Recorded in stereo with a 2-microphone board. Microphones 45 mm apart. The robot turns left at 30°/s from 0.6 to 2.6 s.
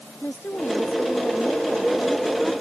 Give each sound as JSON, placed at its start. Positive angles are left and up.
{"t": 0.2, "sound": "a woman speaking", "azimuth_deg": 55}